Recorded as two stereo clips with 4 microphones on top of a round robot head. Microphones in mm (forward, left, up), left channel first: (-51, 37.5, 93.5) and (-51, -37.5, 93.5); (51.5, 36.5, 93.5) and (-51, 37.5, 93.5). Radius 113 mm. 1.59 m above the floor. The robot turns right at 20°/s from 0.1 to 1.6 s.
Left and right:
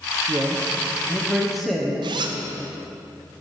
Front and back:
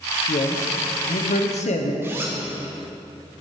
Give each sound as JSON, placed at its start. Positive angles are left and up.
{"t": 0.3, "sound": "a man speaking", "azimuth_deg": -25, "distance_m": 1.0}
{"t": 2.0, "sound": "a zipper", "azimuth_deg": -105, "distance_m": 0.6}